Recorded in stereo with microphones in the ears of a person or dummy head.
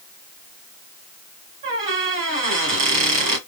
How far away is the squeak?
About 2 m.